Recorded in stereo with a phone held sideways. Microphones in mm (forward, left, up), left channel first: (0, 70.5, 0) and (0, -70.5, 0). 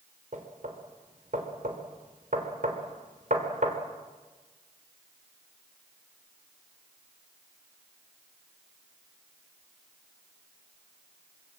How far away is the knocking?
About 3.5 m.